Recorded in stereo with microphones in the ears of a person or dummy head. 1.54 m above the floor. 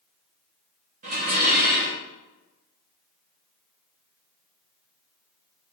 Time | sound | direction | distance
1.0 | dishes clattering | 40° right (ahead or behind) | 1.4 m